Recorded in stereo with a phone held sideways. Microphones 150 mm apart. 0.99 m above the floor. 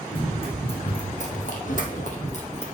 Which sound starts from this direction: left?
Running footsteps, at 0.1 s.